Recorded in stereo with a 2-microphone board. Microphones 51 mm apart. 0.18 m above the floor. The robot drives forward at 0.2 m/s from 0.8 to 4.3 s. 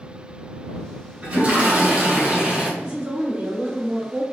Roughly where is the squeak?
I don't hear a squeak.